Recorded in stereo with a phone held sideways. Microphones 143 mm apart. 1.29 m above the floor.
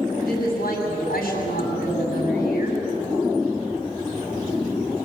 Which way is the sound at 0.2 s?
70° left (ahead or behind).